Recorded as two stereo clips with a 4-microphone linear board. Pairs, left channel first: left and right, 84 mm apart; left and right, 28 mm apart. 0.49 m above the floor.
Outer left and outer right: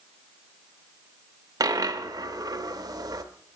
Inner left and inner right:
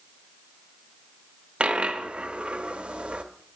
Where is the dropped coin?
50° right (ahead or behind), 0.5 m.